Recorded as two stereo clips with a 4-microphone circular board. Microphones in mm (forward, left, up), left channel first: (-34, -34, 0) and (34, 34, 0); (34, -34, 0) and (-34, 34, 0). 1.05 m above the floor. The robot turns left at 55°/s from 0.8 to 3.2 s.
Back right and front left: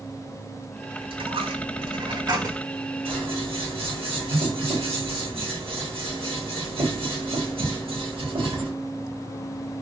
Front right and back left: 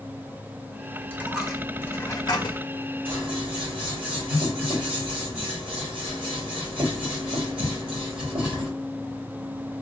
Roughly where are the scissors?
Ahead left.